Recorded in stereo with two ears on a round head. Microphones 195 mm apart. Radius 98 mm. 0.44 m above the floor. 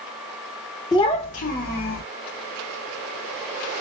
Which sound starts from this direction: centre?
A child speaking, at 0.9 s.